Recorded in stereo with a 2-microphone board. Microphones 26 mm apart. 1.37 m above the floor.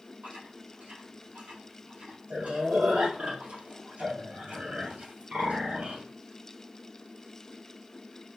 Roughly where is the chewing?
Right.